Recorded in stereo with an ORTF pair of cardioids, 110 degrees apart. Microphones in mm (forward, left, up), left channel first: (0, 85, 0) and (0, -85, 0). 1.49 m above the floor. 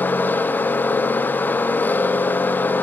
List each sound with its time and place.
0.0 s a machine running: 10° left, 0.9 m